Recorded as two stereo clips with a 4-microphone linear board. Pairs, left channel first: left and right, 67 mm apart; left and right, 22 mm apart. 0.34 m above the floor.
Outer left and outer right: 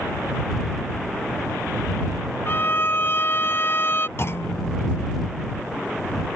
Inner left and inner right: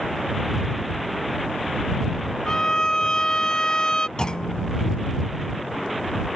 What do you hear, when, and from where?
2.5 s a violin: 35° left (ahead or behind)
4.2 s a clunk: 40° left (ahead or behind)